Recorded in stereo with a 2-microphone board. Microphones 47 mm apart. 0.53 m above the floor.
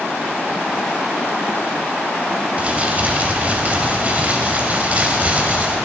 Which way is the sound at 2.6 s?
35° right (ahead or behind).